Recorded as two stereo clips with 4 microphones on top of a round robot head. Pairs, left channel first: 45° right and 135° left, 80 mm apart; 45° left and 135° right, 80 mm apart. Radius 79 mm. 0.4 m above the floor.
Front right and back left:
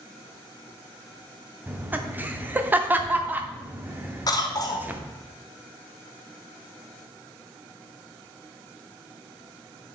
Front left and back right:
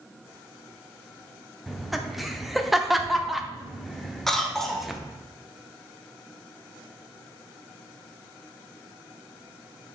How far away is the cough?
About 1.1 m.